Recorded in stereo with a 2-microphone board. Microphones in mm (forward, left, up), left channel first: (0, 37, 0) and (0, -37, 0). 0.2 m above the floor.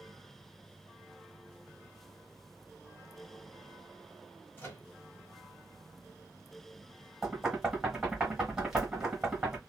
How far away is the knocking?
About 1.4 m.